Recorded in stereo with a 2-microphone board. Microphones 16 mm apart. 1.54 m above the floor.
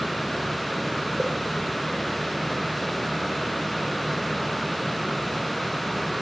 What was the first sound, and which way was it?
A pop, 65° right (ahead or behind).